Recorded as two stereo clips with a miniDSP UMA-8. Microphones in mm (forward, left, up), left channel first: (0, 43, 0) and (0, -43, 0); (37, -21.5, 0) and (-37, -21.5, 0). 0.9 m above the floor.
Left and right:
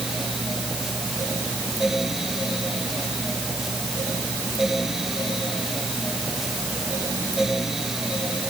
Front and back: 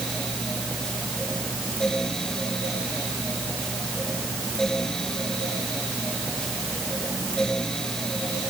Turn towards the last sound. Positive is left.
No sound to turn to.